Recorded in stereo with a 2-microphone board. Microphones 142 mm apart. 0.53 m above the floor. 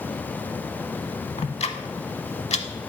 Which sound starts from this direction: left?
Ticking, at 1.4 s.